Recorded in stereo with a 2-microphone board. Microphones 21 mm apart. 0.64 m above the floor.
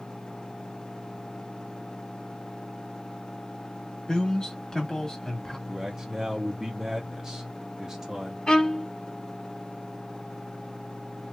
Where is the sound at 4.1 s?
40° left (ahead or behind), 1.5 m; by 5.6 s 25° left (ahead or behind), 1.6 m.